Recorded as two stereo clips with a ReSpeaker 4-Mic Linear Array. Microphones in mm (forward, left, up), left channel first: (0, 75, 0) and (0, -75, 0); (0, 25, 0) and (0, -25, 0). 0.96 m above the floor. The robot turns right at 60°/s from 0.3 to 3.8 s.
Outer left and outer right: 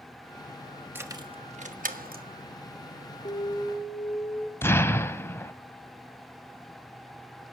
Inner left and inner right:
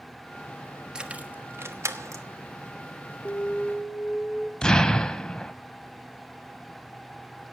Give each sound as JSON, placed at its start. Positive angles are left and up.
{"t": 0.9, "sound": "keys jangling", "side_deg": -15, "distance_m": 1.2}
{"t": 3.2, "sound": "an alarm", "azimuth_deg": 135, "distance_m": 3.0}
{"t": 4.6, "sound": "an explosion", "side_deg": 15, "distance_m": 0.9}